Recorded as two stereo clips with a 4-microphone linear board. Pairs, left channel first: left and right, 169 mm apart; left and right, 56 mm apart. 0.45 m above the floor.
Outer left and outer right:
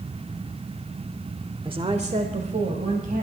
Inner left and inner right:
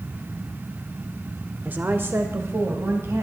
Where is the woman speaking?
30° right (ahead or behind), 1.0 m; by 3.2 s 55° right (ahead or behind), 3 m.